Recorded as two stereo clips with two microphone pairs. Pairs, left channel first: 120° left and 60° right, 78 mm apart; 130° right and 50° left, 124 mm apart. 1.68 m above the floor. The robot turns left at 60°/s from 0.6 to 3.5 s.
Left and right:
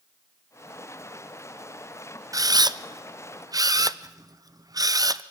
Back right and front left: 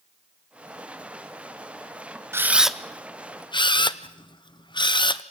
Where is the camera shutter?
20° right, 0.6 m; by 5.2 s 90° right, 0.6 m.